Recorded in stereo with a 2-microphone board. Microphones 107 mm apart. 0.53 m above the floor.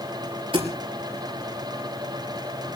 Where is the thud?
55° right (ahead or behind), 4.5 m.